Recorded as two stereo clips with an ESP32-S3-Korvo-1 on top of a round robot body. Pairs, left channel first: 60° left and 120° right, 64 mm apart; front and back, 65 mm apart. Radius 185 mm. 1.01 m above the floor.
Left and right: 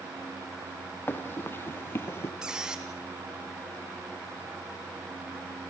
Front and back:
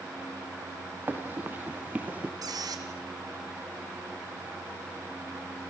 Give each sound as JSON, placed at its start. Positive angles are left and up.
{"t": 1.1, "sound": "running footsteps", "azimuth_deg": 120, "distance_m": 3.0}
{"t": 2.4, "sound": "a squeak", "azimuth_deg": 160, "distance_m": 2.0}